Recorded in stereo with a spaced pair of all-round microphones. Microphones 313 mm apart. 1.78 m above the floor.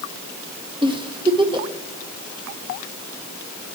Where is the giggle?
15° right (ahead or behind), 1.1 m.